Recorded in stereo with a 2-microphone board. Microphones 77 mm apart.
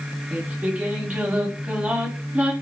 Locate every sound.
0.3 s singing: 20° right (ahead or behind), 1.2 m